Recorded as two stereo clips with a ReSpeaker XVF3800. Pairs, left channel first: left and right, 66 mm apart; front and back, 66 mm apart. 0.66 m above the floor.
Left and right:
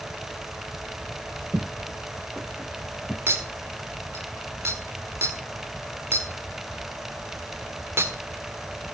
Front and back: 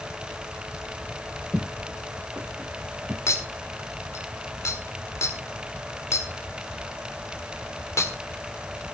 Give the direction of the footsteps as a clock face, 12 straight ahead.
3 o'clock.